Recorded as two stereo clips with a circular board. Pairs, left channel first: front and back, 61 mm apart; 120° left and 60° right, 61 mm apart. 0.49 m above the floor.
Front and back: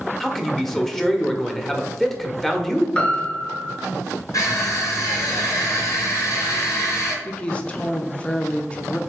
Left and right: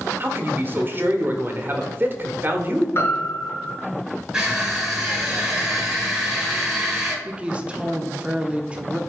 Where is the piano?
75° left, 1.4 m.